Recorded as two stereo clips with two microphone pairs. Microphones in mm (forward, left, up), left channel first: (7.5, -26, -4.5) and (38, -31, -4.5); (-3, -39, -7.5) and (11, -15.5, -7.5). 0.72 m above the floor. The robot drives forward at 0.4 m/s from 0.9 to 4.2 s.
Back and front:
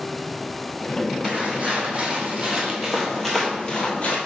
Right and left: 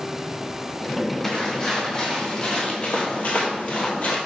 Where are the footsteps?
55° right, 2.5 m; by 4.2 s 150° right, 1.3 m.